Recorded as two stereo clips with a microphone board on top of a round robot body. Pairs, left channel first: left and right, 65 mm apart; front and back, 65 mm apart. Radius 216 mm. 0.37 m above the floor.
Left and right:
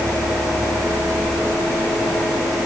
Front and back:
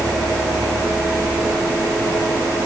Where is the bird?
I don't hear a bird.